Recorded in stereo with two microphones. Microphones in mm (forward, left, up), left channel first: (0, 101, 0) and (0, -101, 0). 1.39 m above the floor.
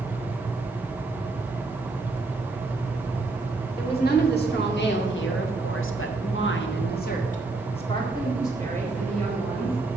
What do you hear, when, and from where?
3.8 s a woman speaking: 50° left (ahead or behind), 2.5 m; by 9.8 s 5° left (ahead or behind), 2.5 m